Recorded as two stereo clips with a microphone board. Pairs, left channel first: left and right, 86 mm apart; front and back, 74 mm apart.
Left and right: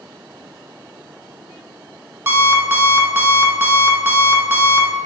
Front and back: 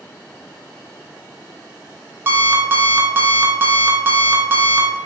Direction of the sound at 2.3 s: 140° right.